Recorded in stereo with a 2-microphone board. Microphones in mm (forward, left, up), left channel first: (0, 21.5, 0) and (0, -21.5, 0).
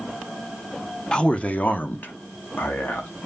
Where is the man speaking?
20° left (ahead or behind), 0.8 m; by 3.1 s 60° left (ahead or behind), 2 m.